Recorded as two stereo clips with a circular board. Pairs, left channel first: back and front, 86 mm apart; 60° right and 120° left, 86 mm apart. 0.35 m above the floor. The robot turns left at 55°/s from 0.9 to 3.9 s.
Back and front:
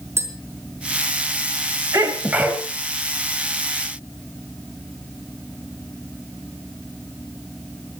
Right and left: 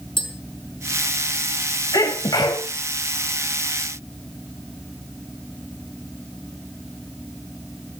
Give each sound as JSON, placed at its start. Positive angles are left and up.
{"t": 0.2, "sound": "tapping", "azimuth_deg": -60, "distance_m": 4.0}
{"t": 1.9, "sound": "a sneeze", "azimuth_deg": -45, "distance_m": 2.5}